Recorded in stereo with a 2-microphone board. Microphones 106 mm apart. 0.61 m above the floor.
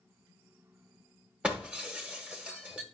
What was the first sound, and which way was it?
Breaking glass, 10° right (ahead or behind).